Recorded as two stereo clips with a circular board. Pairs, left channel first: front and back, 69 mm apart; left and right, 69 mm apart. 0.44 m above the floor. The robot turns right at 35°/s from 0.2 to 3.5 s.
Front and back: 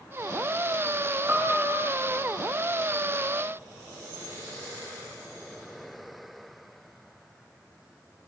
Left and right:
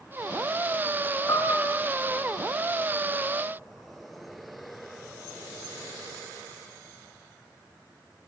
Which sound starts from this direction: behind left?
A piano, at 1.3 s.